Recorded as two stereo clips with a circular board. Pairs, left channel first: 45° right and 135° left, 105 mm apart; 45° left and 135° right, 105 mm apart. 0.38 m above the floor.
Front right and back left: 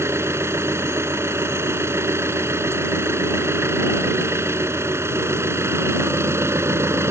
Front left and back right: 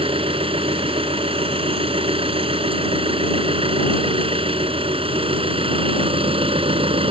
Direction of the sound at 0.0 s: 160° right.